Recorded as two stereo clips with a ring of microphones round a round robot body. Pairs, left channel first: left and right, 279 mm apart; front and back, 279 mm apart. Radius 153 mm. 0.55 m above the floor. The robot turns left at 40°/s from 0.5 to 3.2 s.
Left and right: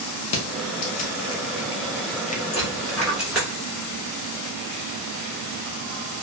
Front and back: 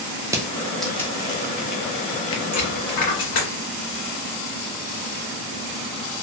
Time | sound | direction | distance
0.3 | crushing | 100° left | 0.6 m
2.5 | a dropped coin | 25° left | 1.5 m